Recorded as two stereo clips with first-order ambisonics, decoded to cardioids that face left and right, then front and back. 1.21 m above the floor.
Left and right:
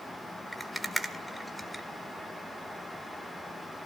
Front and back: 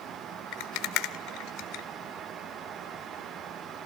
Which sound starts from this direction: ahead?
A rattle, at 0.5 s.